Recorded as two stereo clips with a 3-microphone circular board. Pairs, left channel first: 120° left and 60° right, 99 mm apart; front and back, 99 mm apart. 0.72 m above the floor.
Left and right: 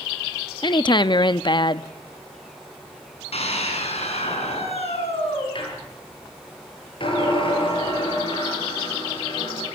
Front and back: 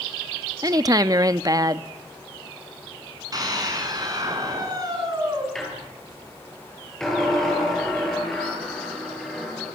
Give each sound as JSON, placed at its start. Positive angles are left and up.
{"t": 0.6, "sound": "a woman speaking", "azimuth_deg": 140, "distance_m": 0.7}
{"t": 3.3, "sound": "a scream", "azimuth_deg": 130, "distance_m": 7.5}
{"t": 5.5, "sound": "a squeak", "azimuth_deg": 85, "distance_m": 8.5}